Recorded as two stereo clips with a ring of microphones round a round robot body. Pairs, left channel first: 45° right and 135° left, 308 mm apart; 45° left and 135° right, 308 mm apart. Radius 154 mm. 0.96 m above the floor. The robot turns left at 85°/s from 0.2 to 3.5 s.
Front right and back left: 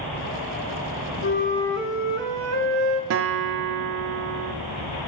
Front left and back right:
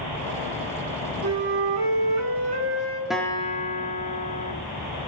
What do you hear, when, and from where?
1.2 s a flute: 90° right, 1.0 m; by 3.0 s 120° left, 1.0 m
3.1 s a guitar: 140° left, 0.5 m; by 4.5 s 105° left, 0.5 m